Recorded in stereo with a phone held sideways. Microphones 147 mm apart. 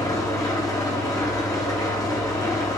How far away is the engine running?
About 0.8 m.